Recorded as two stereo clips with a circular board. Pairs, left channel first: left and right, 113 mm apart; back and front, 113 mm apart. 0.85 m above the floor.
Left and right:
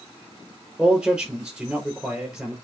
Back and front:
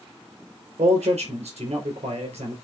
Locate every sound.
0.8 s a man speaking: 5° right, 4 m